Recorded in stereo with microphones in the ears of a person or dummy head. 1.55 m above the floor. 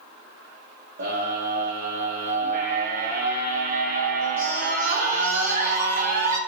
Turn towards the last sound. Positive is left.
turn(degrees=-45)  # may be behind; listen again after turning